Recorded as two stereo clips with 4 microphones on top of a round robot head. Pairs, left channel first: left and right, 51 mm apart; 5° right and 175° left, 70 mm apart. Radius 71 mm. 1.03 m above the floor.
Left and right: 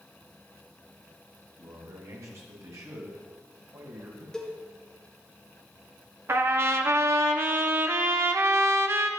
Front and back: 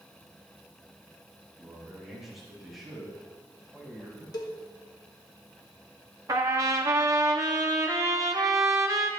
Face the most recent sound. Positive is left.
turn(degrees=-125)